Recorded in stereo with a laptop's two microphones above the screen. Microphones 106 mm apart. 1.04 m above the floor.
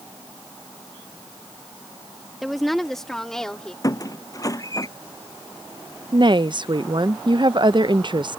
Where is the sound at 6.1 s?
45° right (ahead or behind).